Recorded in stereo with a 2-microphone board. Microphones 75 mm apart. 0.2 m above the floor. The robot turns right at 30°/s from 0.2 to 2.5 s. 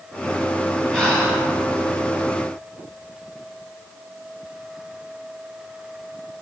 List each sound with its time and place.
0.9 s breathing: 15° left (ahead or behind), 2 m; by 1.4 s centre (ahead or behind), 2 m